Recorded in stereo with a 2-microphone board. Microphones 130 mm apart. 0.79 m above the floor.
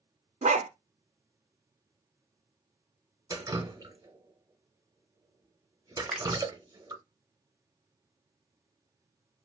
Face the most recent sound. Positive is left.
turn(degrees=-5)  # may be behind; listen again after turning